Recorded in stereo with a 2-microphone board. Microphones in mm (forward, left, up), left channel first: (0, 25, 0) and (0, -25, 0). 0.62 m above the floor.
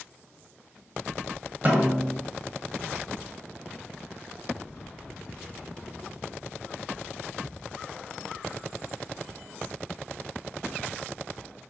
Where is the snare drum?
35° right (ahead or behind), 1.5 m.